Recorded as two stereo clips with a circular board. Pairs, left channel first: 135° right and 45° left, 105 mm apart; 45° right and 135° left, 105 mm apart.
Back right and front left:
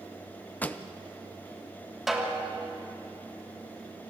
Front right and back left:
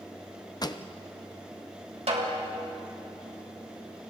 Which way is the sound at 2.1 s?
135° left.